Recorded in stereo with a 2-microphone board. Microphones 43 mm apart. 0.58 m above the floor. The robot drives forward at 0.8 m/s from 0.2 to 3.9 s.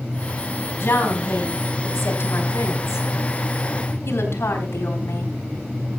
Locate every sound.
0.8 s a woman speaking: 55° left (ahead or behind), 4.5 m; by 5.3 s 80° left, 3.5 m